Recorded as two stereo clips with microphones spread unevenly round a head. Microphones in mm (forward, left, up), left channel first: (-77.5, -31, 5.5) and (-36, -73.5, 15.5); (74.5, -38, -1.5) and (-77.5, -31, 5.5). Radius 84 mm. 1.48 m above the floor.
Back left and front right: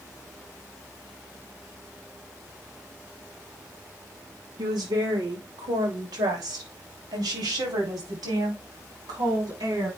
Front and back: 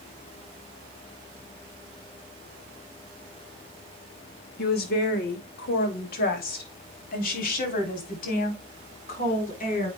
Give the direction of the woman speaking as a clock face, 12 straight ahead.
1 o'clock.